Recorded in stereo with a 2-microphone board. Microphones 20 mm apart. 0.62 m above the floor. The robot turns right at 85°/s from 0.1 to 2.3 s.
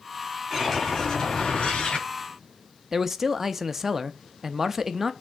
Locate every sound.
0.5 s a whoosh: 5° right, 5 m; by 2.1 s 125° left, 5 m
2.9 s a man speaking: 20° right (ahead or behind), 0.6 m